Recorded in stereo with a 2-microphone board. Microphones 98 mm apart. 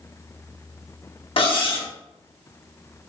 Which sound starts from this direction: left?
Cutlery clinking, at 1.4 s.